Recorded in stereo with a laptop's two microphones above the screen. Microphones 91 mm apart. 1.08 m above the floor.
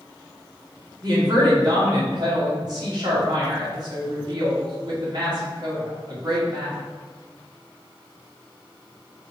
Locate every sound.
1.0 s a woman speaking: 50° right (ahead or behind), 2 m